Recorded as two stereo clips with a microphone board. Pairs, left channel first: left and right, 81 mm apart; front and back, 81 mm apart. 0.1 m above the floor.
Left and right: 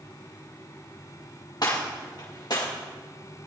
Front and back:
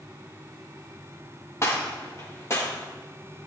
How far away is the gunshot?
About 5.5 m.